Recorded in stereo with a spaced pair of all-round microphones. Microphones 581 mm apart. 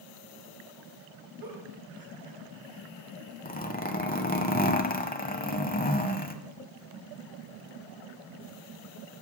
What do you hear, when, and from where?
1.4 s a giggle: 35° right (ahead or behind), 2.5 m
3.5 s a zipper: 15° left (ahead or behind), 0.9 m